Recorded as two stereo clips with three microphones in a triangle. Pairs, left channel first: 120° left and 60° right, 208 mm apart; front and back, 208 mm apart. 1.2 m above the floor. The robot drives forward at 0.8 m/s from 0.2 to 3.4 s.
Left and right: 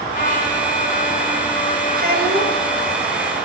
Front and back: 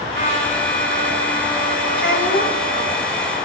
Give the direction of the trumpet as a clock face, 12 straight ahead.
6 o'clock.